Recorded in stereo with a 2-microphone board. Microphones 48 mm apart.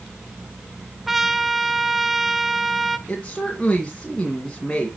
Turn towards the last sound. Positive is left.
turn(degrees=20)  # may be behind; listen again after turning